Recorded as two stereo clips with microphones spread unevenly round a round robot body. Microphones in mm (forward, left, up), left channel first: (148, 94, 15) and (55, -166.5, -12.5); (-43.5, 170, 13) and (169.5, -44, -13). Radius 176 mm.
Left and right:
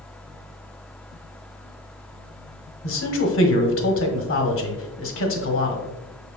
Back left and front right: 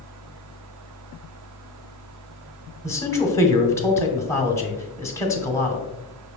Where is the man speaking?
55° left, 0.9 m.